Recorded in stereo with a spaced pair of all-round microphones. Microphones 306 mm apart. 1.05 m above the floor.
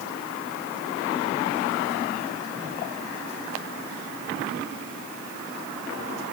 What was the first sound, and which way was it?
Only background noise.